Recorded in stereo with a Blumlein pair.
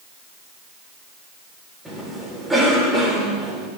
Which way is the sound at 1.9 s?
10° right.